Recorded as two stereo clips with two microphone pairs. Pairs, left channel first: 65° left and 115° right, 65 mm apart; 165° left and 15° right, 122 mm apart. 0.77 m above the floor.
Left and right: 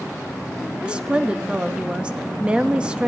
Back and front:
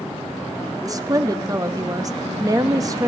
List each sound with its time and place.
0.8 s a woman speaking: 50° right, 0.7 m